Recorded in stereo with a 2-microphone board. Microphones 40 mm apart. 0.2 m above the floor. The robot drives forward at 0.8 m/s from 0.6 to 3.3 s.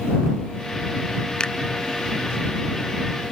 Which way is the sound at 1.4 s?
20° left (ahead or behind).